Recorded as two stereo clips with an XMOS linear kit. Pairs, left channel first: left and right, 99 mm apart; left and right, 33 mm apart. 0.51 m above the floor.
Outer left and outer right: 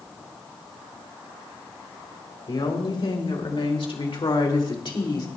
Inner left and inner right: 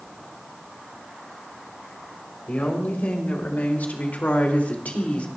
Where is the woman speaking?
50° left (ahead or behind), 3 m; by 5.3 s 40° left (ahead or behind), 2.0 m.